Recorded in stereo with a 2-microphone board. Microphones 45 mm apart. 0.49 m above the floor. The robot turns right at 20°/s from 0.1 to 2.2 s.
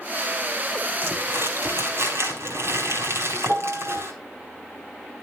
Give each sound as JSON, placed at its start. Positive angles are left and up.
{"t": 1.0, "sound": "crumpling", "side_deg": -65, "distance_m": 4.5}
{"t": 3.5, "sound": "a piano", "side_deg": -55, "distance_m": 1.7}